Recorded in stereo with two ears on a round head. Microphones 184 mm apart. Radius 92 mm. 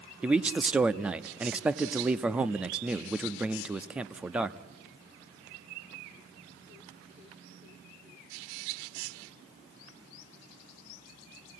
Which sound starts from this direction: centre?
A man speaking, at 0.2 s.